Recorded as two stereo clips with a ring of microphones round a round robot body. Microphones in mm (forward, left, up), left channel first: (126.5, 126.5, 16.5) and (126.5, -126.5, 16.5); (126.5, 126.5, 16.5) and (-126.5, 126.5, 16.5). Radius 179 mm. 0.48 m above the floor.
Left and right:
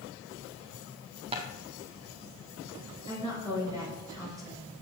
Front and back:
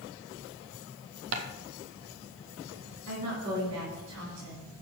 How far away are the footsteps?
About 0.7 m.